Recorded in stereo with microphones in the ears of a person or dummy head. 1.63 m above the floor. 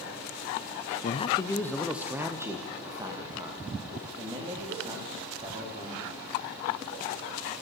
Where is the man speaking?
35° left (ahead or behind), 0.8 m; by 6.2 s 25° right (ahead or behind), 5.5 m.